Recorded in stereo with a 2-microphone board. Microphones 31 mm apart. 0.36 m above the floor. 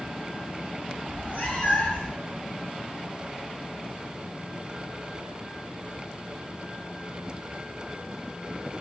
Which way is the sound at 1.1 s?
40° left (ahead or behind).